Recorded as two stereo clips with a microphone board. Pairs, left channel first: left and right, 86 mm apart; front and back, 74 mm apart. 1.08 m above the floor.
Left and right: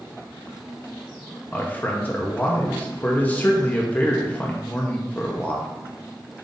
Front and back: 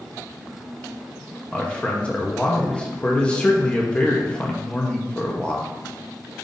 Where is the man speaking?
55° left, 0.6 m.